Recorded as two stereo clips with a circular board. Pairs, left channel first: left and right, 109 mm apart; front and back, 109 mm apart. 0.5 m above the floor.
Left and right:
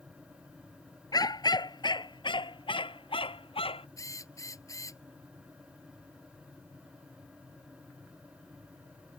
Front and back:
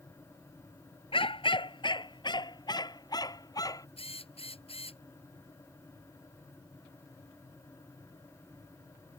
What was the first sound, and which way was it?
A dog barking, 35° left.